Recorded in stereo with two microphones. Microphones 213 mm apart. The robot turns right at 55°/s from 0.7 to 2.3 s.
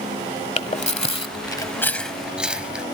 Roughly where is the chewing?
Left.